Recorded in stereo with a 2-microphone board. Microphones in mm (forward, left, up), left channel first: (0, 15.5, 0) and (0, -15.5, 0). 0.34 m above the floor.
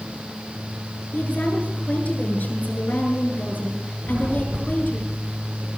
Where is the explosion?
85° right, 9.5 m.